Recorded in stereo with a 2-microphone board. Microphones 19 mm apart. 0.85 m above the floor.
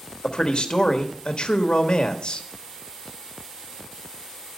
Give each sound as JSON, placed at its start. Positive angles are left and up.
{"t": 0.2, "sound": "a man speaking", "side_deg": 60, "distance_m": 1.1}